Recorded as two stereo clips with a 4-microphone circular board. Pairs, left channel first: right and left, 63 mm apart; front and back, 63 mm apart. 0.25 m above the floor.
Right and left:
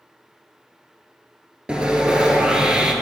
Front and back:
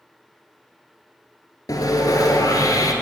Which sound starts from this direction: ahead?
Sawing, at 1.7 s.